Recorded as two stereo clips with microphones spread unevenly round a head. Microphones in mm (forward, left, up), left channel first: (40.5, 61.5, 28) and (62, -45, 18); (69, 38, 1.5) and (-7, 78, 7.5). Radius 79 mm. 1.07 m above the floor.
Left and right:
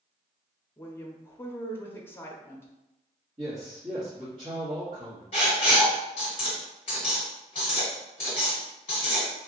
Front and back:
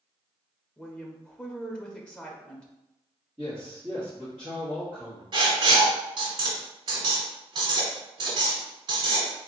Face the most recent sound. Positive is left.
turn(degrees=150)